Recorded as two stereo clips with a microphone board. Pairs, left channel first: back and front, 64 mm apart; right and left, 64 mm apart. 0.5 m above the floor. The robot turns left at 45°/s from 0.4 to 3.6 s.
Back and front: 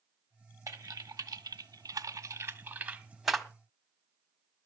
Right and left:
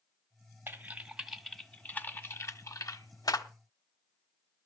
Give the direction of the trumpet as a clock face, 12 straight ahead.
No trumpet in this recording.